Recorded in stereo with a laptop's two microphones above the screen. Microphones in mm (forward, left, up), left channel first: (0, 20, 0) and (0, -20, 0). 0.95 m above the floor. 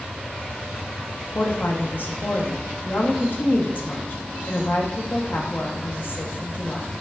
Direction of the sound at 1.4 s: 55° left (ahead or behind).